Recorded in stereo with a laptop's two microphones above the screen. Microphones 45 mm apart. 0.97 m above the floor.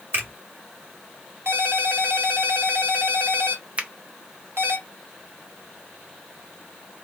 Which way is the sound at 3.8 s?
30° right (ahead or behind).